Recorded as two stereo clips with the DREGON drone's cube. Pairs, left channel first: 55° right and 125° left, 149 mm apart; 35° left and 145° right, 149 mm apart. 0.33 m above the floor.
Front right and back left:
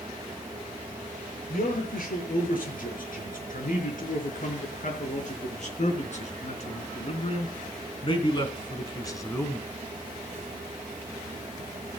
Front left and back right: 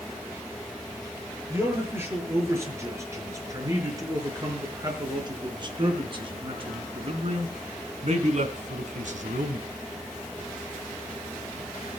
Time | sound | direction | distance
1.5 | a man speaking | 70° right | 6 m